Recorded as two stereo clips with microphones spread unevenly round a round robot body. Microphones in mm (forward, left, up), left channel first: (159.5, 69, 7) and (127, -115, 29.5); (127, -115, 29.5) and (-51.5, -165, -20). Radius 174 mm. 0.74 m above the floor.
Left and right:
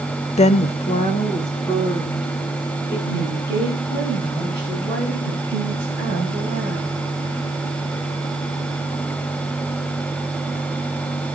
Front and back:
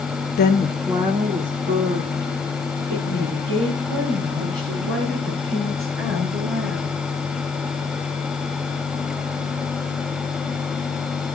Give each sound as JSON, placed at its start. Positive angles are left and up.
{"t": 0.4, "sound": "a woman speaking", "azimuth_deg": 50, "distance_m": 0.5}